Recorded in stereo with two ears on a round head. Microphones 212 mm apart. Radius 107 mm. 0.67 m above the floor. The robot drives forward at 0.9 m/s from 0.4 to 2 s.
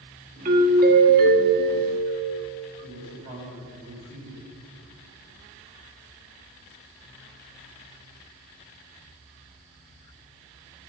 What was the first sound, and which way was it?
A doorbell, 35° right (ahead or behind).